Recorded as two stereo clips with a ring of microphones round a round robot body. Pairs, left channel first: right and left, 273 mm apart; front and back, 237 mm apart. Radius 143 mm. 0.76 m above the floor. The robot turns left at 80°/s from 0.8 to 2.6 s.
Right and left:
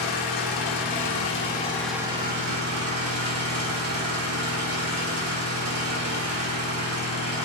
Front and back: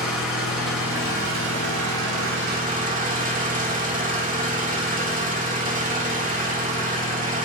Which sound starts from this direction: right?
An engine running, at 0.0 s.